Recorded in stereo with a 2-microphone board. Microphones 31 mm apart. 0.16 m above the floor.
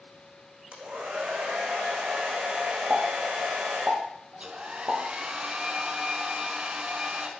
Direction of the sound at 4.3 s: 40° right (ahead or behind).